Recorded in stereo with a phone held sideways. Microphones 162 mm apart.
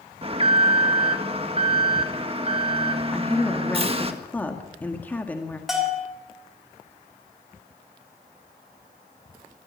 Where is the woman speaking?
10° left (ahead or behind), 1.8 m.